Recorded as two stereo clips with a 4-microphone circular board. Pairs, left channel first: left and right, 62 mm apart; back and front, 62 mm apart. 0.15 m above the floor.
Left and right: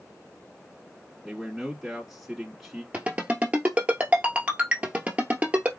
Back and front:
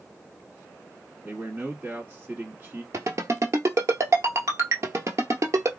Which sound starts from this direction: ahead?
A man speaking, at 1.2 s.